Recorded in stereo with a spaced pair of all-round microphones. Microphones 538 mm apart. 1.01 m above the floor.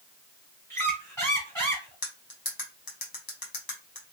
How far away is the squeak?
About 1.8 m.